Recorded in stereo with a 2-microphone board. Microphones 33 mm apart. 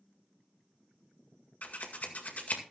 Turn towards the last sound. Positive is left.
turn(degrees=55)  # may be behind; listen again after turning